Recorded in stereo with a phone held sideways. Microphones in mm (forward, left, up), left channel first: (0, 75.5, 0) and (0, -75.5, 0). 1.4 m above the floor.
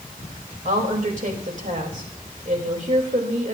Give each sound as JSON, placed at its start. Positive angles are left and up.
{"t": 0.7, "sound": "a woman speaking", "side_deg": -60, "distance_m": 3.0}